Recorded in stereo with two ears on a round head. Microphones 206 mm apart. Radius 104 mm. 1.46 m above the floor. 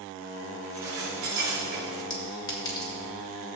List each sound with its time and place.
0.6 s dishes clattering: 60° right (ahead or behind), 3.5 m
2.1 s a clink: 20° left (ahead or behind), 1.7 m